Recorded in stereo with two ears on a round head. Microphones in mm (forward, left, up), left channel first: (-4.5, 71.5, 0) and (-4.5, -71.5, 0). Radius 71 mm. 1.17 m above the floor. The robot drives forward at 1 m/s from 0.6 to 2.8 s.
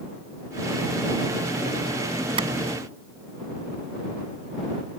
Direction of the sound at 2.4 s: 35° right (ahead or behind).